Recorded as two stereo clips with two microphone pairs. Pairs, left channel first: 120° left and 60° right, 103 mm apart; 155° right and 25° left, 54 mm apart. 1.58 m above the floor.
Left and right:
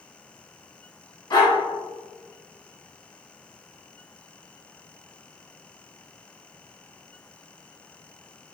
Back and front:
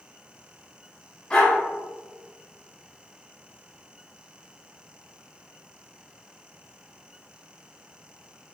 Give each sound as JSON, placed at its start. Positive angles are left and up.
{"t": 1.3, "sound": "a dog barking", "azimuth_deg": 145, "distance_m": 1.6}